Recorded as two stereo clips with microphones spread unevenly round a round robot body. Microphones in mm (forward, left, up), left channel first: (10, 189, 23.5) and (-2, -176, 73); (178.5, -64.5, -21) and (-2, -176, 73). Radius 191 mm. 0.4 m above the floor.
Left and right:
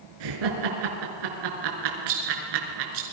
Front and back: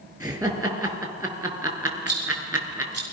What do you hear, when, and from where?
0.2 s laughter: 70° right, 5.5 m
2.1 s a rattle: 105° right, 6.5 m